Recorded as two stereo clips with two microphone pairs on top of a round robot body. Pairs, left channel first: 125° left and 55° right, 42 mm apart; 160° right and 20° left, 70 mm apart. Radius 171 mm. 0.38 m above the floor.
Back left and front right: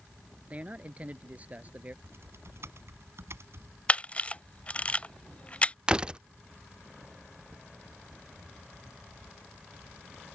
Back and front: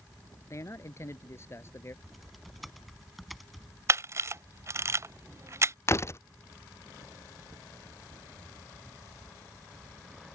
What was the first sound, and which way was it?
A man speaking, 115° right.